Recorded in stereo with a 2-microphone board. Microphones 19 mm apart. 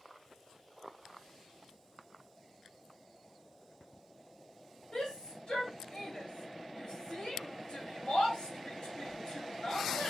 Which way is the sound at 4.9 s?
50° left (ahead or behind).